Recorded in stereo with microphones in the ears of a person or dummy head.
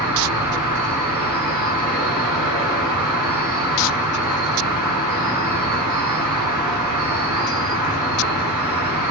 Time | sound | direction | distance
0.0 | an insect | 15° right (ahead or behind) | 1.2 m